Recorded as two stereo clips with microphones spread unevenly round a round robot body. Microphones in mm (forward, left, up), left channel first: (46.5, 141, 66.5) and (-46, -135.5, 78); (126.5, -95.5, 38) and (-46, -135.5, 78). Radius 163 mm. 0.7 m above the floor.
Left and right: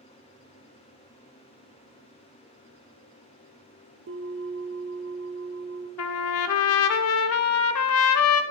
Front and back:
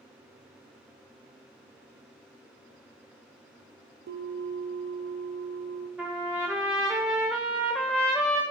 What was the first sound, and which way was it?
A bell, 160° right.